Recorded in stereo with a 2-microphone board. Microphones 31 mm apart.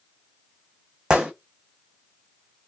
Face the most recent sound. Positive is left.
turn(degrees=-25)  # may be behind; listen again after turning